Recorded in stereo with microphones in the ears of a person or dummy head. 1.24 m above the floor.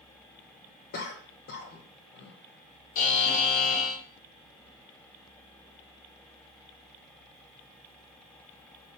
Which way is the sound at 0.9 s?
45° left (ahead or behind).